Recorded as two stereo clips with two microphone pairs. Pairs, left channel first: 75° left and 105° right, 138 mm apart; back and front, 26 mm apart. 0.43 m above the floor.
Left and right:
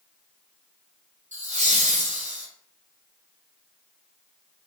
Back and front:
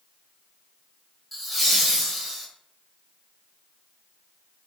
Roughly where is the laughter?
Right.